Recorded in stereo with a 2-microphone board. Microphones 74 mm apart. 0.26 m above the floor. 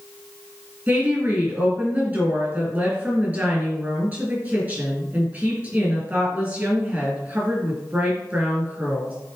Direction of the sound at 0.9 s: 25° right (ahead or behind).